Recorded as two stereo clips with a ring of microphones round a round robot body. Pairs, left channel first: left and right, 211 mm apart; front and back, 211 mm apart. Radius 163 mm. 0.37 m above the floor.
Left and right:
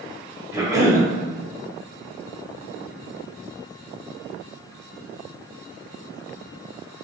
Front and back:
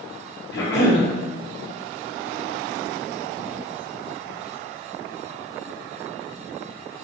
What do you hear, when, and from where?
0.5 s a cough: 20° right, 1.8 m